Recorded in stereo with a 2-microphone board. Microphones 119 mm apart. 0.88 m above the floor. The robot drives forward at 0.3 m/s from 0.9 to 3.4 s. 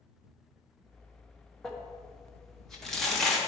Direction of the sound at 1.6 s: 5° left (ahead or behind).